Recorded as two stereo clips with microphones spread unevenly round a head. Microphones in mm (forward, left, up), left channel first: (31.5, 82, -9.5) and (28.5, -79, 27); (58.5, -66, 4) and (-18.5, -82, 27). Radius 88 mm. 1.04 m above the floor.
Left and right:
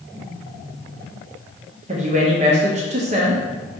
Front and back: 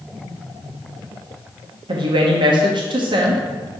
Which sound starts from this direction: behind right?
A woman speaking, at 1.9 s.